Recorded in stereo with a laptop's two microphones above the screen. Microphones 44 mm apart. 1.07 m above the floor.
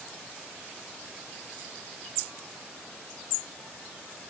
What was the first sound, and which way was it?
Only background noise.